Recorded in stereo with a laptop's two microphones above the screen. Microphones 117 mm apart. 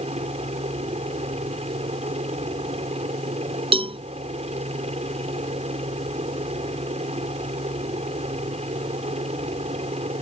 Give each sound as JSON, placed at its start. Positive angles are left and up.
{"t": 0.0, "sound": "a helicopter", "side_deg": -65}
{"t": 3.7, "sound": "a cowbell", "side_deg": -50}